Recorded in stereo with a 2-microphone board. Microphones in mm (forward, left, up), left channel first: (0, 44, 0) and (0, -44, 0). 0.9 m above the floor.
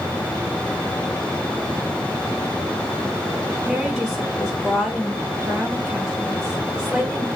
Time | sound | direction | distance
3.6 | a woman speaking | 5° left (ahead or behind) | 6.5 m